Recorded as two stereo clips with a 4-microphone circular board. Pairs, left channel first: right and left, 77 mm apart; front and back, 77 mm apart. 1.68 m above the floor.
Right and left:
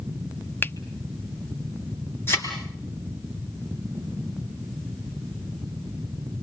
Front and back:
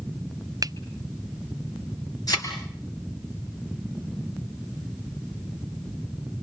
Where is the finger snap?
150° right, 0.7 m.